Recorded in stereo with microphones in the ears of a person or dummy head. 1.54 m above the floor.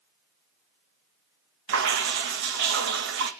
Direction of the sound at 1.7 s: 70° right (ahead or behind).